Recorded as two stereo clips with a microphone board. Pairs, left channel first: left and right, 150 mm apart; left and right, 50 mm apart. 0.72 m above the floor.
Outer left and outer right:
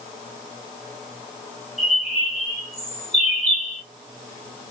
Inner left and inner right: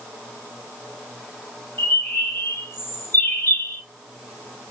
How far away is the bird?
About 1.4 m.